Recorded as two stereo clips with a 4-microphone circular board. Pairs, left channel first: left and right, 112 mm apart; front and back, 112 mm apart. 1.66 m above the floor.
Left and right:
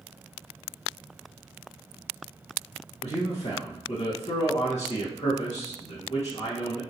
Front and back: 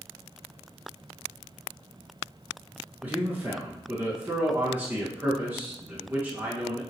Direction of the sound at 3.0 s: 105° left.